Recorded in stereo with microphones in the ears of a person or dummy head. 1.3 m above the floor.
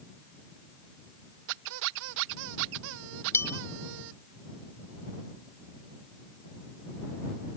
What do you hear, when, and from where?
1.5 s a squeak: 70° right (ahead or behind)
3.3 s a bell: 15° left (ahead or behind)